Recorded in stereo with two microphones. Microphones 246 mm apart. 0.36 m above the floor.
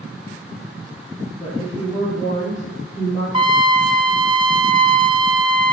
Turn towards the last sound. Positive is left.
turn(degrees=-20)  # may be behind; listen again after turning